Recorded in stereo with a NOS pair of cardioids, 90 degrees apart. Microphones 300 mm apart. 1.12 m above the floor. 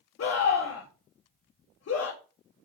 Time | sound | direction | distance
0.2 | a scream | 45° left | 1.9 m